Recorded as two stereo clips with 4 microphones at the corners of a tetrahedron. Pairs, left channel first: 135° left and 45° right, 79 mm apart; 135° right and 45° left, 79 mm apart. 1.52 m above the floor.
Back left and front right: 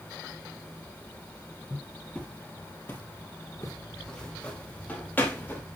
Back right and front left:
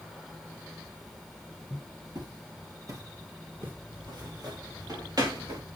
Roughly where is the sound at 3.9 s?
Ahead left.